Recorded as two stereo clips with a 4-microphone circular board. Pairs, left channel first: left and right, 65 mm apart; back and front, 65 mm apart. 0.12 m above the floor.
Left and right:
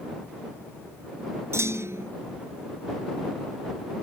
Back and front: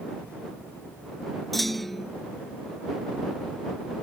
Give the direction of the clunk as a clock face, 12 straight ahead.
3 o'clock.